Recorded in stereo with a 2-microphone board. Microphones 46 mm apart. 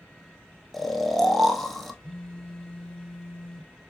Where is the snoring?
5° left (ahead or behind), 1.1 m.